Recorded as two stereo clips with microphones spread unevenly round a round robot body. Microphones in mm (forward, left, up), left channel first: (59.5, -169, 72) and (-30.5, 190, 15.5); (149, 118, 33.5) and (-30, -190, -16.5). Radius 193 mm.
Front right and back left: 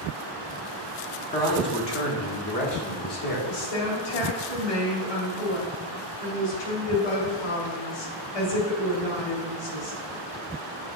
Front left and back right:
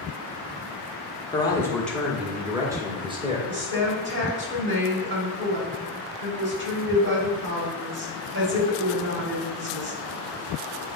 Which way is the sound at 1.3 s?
20° right.